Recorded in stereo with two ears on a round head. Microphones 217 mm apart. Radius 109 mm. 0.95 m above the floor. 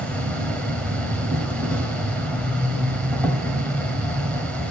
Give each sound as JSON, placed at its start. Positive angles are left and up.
{"t": 0.0, "sound": "an insect", "side_deg": 5, "distance_m": 1.4}